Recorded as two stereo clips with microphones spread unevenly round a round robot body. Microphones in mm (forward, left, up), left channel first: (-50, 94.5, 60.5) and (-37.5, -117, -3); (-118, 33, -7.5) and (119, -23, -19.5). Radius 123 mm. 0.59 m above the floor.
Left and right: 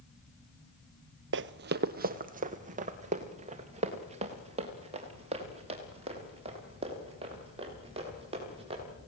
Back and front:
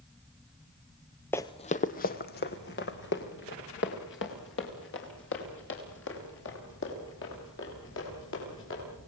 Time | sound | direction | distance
1.3 | running footsteps | 120° right | 0.7 m